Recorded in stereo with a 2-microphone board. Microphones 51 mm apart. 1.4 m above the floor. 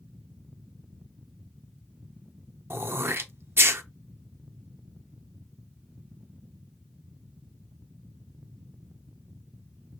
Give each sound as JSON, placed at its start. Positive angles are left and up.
{"t": 2.7, "sound": "throat clearing", "side_deg": -55, "distance_m": 0.6}